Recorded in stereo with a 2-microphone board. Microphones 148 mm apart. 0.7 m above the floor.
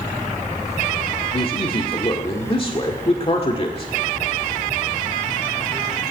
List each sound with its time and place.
1.3 s a man speaking: 40° left (ahead or behind), 1.8 m